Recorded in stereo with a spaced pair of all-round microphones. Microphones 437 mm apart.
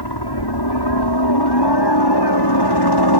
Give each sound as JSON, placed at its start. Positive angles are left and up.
{"t": 0.0, "sound": "a helicopter", "side_deg": 65}